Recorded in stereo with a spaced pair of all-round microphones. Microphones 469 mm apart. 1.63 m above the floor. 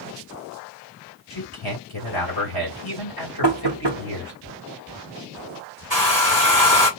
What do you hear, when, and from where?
1.3 s a man speaking: 50° left (ahead or behind), 2.5 m
3.4 s knocking: 60° right (ahead or behind), 1.0 m
5.9 s a hair dryer: 50° left (ahead or behind), 4 m